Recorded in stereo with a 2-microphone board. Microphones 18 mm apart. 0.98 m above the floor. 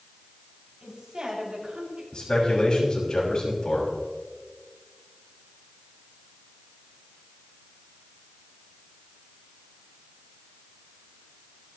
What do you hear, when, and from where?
0.8 s a woman speaking: 60° right (ahead or behind), 7 m; by 2.0 s 70° right (ahead or behind), 6 m
2.1 s a man speaking: 45° left (ahead or behind), 6 m